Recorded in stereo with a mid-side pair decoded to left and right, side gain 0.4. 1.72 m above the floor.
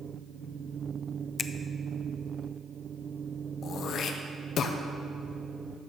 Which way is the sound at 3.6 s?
70° left.